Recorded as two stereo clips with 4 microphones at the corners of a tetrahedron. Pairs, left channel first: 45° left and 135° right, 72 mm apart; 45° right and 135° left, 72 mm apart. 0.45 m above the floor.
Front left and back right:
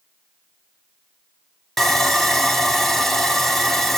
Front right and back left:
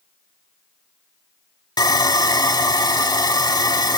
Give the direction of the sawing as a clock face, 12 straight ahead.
1 o'clock.